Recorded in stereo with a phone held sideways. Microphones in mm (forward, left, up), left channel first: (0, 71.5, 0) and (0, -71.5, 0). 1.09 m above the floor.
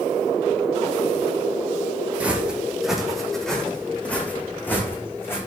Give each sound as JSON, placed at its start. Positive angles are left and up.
{"t": 2.2, "sound": "footsteps", "side_deg": -10, "distance_m": 3.5}